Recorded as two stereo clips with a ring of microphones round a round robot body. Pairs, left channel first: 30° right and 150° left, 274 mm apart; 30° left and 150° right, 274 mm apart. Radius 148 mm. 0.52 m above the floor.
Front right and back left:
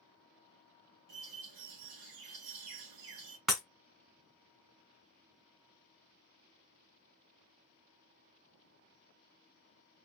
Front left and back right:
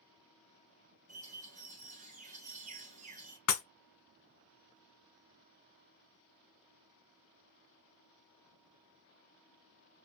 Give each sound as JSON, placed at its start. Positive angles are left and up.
{"t": 1.1, "sound": "a bird", "azimuth_deg": 145, "distance_m": 1.3}
{"t": 3.5, "sound": "breaking glass", "azimuth_deg": 60, "distance_m": 1.2}